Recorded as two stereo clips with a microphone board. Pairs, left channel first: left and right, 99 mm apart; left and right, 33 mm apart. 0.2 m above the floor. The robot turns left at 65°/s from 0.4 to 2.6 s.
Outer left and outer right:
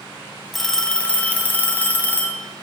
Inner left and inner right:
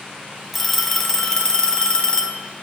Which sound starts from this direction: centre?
A phone ringing, at 0.5 s.